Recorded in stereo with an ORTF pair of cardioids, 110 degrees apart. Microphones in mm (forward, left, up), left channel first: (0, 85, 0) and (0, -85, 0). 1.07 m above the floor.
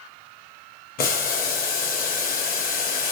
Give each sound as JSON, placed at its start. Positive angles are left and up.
{"t": 1.0, "sound": "boiling", "azimuth_deg": 55, "distance_m": 1.0}